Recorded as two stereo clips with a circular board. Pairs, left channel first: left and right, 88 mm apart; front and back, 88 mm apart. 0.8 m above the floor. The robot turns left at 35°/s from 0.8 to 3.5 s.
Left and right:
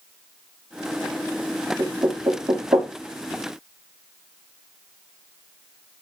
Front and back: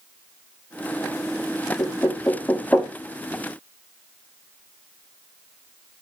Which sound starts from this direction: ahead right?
Knocking, at 1.8 s.